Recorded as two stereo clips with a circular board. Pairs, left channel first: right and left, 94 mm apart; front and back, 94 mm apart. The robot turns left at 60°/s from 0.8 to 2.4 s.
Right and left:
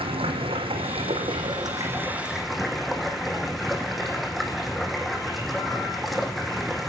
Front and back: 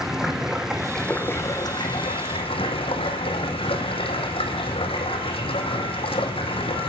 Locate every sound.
0.0 s running water: 95° left, 1.8 m; by 6.9 s straight ahead, 1.8 m